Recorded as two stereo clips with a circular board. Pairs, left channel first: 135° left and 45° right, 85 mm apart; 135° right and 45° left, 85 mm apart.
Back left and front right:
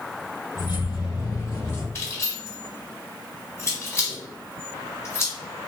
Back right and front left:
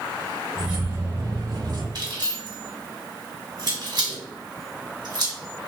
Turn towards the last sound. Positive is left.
turn(degrees=80)